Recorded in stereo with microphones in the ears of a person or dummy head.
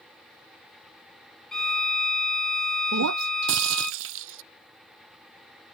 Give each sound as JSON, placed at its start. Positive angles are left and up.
{"t": 1.5, "sound": "a violin", "side_deg": 5}
{"t": 2.9, "sound": "breaking glass", "side_deg": -65}